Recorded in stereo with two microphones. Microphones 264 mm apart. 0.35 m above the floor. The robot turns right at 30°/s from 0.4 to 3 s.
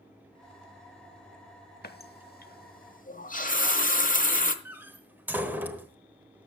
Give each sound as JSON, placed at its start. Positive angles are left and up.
{"t": 1.8, "sound": "a running tap", "side_deg": 35, "distance_m": 0.9}
{"t": 4.7, "sound": "a door slam", "side_deg": -5, "distance_m": 1.1}